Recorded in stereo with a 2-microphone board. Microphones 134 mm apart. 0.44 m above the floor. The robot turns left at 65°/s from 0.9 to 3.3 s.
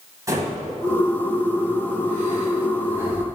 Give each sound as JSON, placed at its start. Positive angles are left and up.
{"t": 0.3, "sound": "breathing", "side_deg": -25, "distance_m": 2.0}